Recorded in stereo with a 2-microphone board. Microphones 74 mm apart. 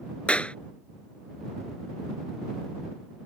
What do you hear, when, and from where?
0.3 s a clap: 15° left (ahead or behind)